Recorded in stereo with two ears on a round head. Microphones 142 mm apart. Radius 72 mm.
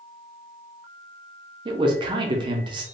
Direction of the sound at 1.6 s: 30° right (ahead or behind).